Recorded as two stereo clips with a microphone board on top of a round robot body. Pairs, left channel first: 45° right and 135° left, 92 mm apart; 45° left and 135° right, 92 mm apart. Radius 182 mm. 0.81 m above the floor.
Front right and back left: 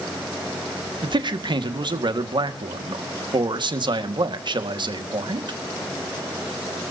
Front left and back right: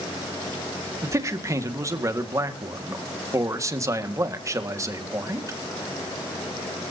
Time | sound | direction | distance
1.0 | a man speaking | 170° left | 1.9 m